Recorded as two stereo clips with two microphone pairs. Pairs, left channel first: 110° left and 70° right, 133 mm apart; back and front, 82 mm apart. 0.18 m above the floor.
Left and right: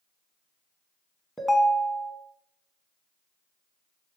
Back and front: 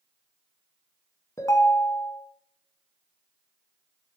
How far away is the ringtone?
About 0.5 m.